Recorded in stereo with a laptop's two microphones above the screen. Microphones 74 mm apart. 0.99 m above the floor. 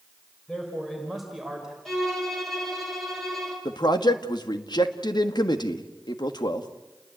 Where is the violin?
Centre (ahead or behind), 5.5 m.